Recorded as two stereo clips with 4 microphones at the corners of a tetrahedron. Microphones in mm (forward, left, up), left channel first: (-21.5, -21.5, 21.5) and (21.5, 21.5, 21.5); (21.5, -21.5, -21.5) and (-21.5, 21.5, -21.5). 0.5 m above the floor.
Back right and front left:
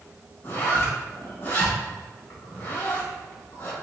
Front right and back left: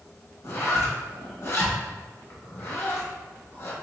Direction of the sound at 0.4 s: 80° right.